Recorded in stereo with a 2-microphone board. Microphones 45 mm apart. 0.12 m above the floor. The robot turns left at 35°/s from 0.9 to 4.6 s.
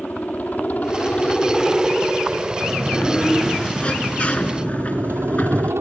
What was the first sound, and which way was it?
A helicopter, 40° left.